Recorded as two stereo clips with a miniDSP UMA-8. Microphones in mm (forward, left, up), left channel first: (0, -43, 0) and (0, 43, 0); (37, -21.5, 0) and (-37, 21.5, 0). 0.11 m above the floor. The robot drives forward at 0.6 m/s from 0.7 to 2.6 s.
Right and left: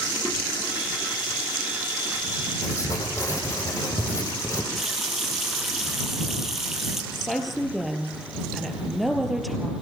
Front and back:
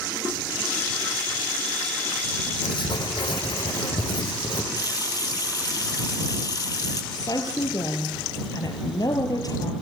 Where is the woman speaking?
Straight ahead, 3 m.